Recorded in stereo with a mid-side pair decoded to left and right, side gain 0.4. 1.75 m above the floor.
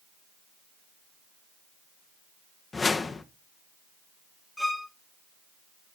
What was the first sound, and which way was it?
A whoosh, 35° left.